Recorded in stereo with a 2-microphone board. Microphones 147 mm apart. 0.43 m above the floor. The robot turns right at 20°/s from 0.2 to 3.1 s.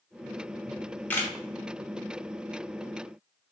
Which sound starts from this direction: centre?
A camera shutter, at 0.7 s.